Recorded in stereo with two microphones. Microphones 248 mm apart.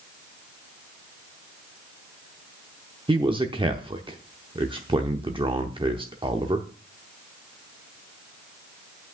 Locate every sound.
3.1 s a man speaking: 20° right (ahead or behind), 0.8 m